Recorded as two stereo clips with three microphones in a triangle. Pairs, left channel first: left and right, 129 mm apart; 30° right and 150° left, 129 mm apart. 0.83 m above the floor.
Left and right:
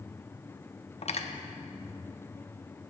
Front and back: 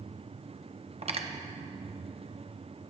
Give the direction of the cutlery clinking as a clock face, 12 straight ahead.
8 o'clock.